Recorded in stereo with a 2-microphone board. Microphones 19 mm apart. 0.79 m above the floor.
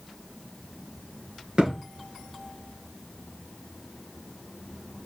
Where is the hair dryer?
I don't hear a hair dryer.